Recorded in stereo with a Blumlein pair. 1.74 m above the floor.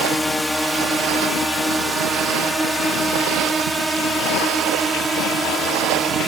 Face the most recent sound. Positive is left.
turn(degrees=-15)